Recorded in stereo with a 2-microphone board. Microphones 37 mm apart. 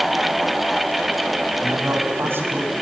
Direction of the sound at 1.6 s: 80° right.